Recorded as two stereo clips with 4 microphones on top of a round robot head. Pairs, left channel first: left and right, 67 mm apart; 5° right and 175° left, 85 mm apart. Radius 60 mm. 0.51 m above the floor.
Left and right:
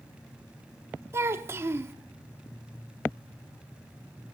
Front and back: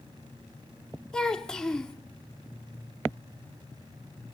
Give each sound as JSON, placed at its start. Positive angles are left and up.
{"t": 1.1, "sound": "a child speaking", "azimuth_deg": -80, "distance_m": 0.6}